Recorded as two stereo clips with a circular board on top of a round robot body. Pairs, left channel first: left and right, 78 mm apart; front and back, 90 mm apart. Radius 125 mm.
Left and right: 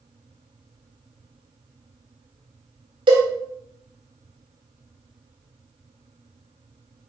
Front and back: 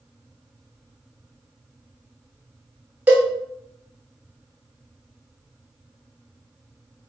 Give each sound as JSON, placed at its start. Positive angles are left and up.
{"t": 3.1, "sound": "a cowbell", "azimuth_deg": -105, "distance_m": 1.2}